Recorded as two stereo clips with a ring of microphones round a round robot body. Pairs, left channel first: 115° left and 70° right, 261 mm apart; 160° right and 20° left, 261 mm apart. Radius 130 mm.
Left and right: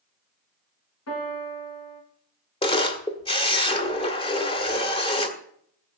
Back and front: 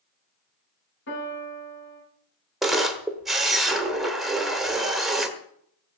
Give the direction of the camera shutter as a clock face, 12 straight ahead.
8 o'clock.